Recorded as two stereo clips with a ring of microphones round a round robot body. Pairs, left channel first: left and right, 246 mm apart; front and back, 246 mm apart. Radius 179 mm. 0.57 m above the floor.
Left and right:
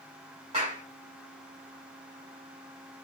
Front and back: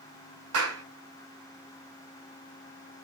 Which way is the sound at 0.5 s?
160° right.